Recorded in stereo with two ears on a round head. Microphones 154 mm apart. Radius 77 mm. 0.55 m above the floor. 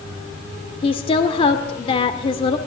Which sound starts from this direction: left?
A woman speaking, at 0.8 s.